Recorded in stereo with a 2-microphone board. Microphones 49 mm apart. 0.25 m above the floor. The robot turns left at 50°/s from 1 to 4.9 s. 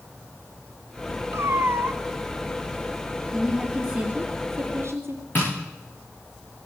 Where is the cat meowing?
75° right, 1.1 m; by 2.0 s 110° right, 1.1 m.